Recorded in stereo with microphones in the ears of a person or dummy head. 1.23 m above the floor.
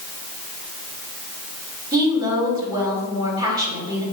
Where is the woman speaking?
25° right (ahead or behind), 3.5 m.